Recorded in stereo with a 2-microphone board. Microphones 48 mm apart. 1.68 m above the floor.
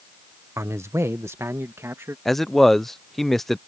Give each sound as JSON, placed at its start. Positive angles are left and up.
{"t": 0.6, "sound": "a man speaking", "side_deg": -85}
{"t": 2.2, "sound": "a man speaking", "side_deg": 5}